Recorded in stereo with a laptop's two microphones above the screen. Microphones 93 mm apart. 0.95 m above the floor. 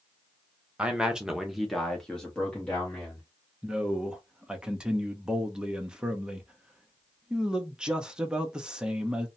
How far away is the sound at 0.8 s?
About 0.8 m.